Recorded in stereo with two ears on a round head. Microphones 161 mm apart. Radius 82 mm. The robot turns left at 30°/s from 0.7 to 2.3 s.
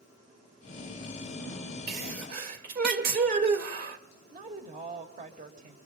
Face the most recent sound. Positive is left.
turn(degrees=-45)  # may be behind; listen again after turning